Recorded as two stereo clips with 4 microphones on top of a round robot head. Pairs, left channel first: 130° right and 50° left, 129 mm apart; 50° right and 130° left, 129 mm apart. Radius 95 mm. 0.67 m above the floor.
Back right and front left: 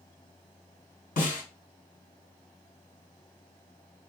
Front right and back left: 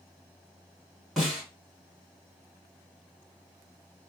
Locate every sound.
1.2 s a snare drum: 140° right, 2.0 m